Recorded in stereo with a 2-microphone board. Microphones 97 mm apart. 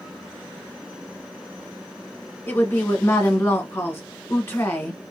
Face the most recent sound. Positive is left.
turn(degrees=25)  # may be behind; listen again after turning